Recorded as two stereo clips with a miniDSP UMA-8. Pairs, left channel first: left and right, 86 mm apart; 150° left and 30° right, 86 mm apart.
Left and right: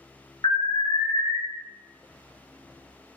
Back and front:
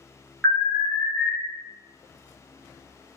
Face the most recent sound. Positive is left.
turn(degrees=60)